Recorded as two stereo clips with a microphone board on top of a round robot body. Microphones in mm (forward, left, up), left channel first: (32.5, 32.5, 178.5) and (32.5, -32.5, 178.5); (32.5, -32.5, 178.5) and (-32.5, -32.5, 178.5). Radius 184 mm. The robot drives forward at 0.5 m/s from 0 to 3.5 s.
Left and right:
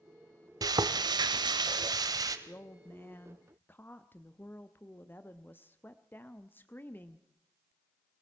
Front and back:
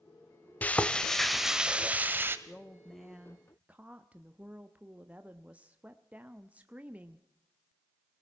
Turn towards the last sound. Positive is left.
turn(degrees=125)